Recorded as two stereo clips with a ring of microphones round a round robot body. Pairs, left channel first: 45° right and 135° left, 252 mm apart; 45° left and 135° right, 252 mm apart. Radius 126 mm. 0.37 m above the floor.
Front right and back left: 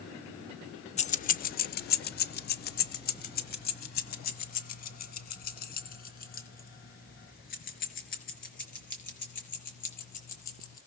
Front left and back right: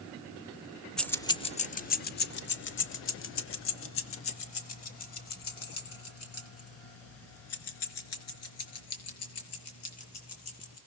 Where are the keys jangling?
40° right, 0.6 m; by 10.8 s 15° left, 5 m.